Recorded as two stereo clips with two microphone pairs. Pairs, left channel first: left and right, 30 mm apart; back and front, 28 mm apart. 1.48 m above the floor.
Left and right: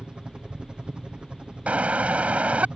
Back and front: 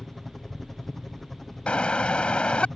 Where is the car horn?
130° right.